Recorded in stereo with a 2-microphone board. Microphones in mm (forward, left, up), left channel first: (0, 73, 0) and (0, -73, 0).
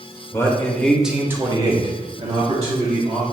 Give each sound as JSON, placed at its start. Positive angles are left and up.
{"t": 0.3, "sound": "a man speaking", "side_deg": 20, "distance_m": 0.9}